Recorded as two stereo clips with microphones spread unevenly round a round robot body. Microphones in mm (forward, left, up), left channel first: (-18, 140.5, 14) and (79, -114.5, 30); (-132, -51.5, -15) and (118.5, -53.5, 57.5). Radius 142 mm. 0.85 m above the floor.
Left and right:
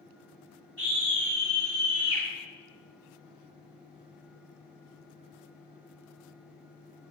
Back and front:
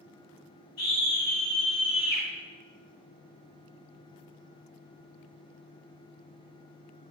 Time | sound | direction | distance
0.8 | a scream | 165° right | 6 m